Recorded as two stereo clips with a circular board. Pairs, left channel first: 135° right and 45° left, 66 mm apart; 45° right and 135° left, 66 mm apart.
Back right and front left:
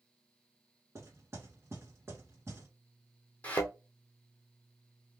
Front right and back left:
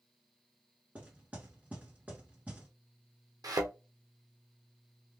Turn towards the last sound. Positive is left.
turn(degrees=155)